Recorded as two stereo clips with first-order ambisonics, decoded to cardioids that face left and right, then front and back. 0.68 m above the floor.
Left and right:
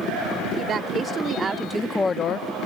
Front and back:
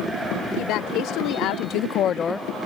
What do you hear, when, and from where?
0.6 s a woman speaking: 30° right; by 2.5 s 90° left